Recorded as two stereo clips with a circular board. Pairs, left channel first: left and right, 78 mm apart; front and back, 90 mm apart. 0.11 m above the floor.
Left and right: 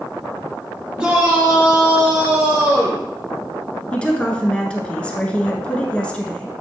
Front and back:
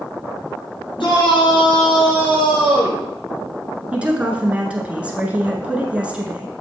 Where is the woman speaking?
135° left, 1.4 m.